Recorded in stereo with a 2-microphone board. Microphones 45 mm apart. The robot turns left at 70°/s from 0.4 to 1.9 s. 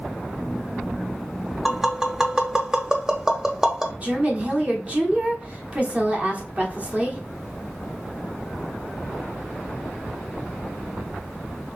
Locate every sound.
1.6 s tapping: centre (ahead or behind), 0.6 m; by 3.9 s 15° right (ahead or behind), 0.6 m
4.0 s a woman speaking: 30° right (ahead or behind), 1.1 m